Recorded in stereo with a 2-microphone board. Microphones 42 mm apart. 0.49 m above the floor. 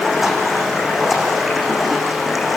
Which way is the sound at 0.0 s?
5° right (ahead or behind).